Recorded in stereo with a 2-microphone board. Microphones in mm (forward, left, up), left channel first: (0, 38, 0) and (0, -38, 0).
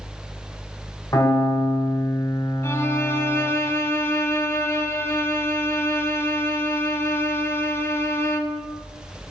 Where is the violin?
35° left (ahead or behind), 0.6 m.